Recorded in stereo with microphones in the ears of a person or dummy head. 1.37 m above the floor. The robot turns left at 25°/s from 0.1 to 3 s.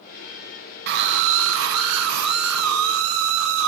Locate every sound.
0.9 s a scream: 60° right, 0.9 m; by 3.7 s 115° right, 0.9 m